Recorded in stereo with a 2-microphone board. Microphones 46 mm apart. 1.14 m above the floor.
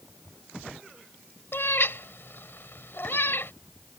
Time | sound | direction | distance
1.5 | a cat meowing | 55° left (ahead or behind) | ?